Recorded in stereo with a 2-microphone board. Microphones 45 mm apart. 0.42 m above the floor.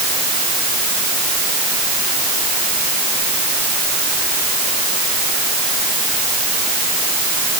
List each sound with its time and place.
Only background noise.